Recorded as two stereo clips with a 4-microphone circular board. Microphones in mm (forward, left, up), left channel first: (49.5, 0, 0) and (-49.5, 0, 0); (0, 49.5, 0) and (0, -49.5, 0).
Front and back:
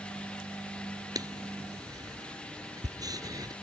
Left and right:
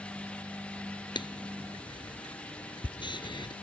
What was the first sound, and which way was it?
Writing, 130° left.